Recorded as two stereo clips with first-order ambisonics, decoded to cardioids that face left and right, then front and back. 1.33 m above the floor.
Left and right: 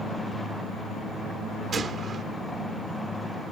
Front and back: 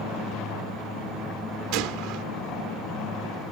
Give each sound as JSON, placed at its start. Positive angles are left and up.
{"t": 1.7, "sound": "a gunshot", "azimuth_deg": -155}